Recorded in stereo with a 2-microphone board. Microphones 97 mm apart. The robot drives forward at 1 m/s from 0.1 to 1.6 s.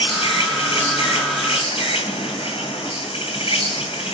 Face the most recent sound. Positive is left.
turn(degrees=85)